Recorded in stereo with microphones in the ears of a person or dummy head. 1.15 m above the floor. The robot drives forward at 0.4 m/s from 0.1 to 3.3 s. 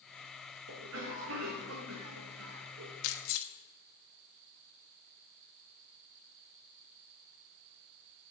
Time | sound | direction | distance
0.7 | a cough | 65° right (ahead or behind) | 1.5 m
3.0 | keys jangling | 80° left | 1.3 m